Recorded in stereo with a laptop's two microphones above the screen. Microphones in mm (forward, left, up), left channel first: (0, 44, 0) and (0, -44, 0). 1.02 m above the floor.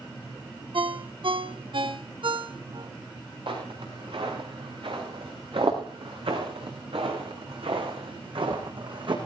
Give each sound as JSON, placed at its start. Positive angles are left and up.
{"t": 0.7, "sound": "a ringtone", "side_deg": -65, "distance_m": 1.1}
{"t": 3.5, "sound": "footsteps", "side_deg": -65, "distance_m": 6.0}